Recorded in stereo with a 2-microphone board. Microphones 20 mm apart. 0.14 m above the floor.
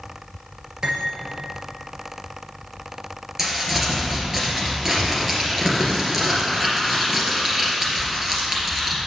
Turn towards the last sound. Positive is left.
turn(degrees=-20)  # may be behind; listen again after turning